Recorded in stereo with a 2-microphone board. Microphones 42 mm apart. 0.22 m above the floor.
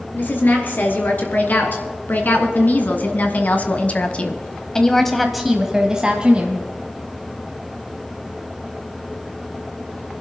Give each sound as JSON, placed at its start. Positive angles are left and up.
{"t": 0.1, "sound": "a woman speaking", "side_deg": 50, "distance_m": 3.0}